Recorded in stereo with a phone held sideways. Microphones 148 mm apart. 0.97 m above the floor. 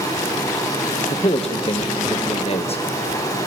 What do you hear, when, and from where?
0.0 s running water: 25° left (ahead or behind), 6 m
1.1 s a man speaking: 40° left (ahead or behind), 1.0 m